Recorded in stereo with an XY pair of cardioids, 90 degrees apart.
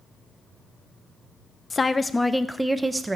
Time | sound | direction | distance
1.7 | a woman speaking | 30° left | 0.8 m